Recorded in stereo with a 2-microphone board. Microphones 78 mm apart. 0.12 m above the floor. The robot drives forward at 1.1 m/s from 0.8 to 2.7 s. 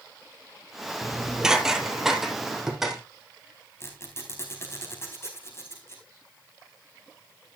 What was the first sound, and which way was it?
Dishes clattering, 10° right (ahead or behind).